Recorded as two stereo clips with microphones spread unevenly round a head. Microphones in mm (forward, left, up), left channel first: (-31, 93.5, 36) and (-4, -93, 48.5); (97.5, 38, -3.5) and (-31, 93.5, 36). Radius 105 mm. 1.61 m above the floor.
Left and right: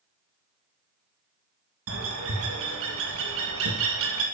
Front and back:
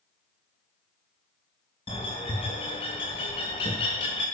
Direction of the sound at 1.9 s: 90° right.